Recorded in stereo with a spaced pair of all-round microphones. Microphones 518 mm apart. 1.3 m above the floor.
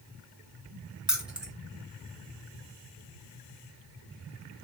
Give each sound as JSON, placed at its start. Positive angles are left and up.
{"t": 1.1, "sound": "keys jangling", "side_deg": 0, "distance_m": 0.8}